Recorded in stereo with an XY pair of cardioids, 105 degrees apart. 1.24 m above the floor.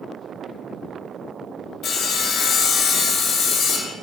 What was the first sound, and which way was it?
Sawing, 65° left.